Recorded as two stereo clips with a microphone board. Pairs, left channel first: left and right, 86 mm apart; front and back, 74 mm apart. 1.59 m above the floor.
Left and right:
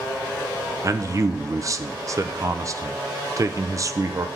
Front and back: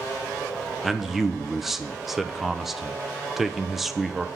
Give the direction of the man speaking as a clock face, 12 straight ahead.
3 o'clock.